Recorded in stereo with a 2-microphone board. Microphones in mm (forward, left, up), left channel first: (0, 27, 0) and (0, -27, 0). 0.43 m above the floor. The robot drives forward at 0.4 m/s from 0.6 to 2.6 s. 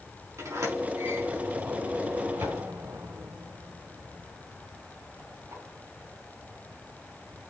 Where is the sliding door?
75° right (ahead or behind), 4.5 m.